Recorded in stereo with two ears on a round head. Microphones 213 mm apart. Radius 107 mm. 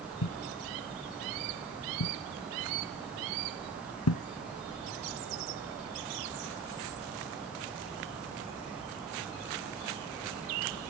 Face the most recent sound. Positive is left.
turn(degrees=70)  # may be behind; listen again after turning